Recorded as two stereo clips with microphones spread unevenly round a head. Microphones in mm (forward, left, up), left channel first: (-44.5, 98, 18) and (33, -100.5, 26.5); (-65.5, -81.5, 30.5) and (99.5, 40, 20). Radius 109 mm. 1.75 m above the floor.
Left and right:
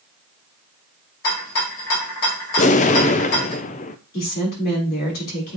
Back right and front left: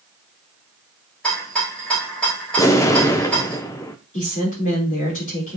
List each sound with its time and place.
1.2 s a rattle: 135° left, 3.5 m
2.6 s an explosion: 150° left, 0.5 m
4.1 s a woman speaking: 160° left, 4 m